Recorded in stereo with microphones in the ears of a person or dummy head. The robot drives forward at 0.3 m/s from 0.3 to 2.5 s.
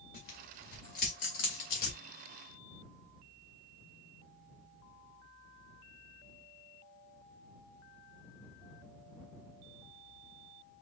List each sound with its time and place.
0.1 s tearing paper: 45° left (ahead or behind), 2.0 m; by 2.0 s 55° left (ahead or behind), 1.8 m